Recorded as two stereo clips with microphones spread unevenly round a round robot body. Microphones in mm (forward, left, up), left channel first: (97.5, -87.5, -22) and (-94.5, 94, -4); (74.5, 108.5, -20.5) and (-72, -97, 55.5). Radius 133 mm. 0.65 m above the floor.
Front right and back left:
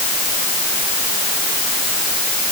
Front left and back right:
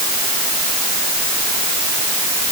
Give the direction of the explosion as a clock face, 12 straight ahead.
I don't hear an explosion.